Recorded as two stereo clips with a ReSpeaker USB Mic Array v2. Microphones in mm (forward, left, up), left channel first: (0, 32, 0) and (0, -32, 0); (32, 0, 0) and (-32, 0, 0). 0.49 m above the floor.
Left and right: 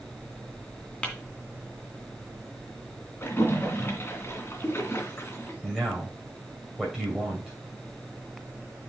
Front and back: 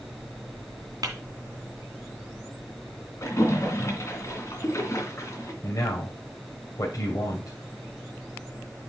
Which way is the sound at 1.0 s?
160° left.